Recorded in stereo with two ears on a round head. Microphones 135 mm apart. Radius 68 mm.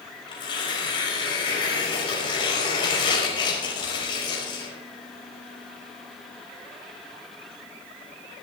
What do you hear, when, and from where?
0.3 s tearing paper: 35° left (ahead or behind), 5 m